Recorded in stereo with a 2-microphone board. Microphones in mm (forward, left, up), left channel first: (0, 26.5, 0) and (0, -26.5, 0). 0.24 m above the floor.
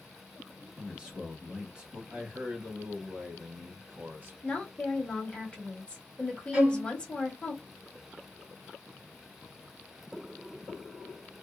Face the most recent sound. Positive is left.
turn(degrees=-20)  # may be behind; listen again after turning